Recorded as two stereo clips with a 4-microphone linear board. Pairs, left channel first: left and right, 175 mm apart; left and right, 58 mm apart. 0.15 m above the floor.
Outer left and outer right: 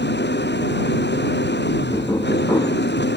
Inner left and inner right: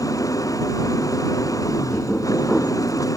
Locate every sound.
0.0 s an engine running: 80° left
1.9 s knocking: 25° left (ahead or behind)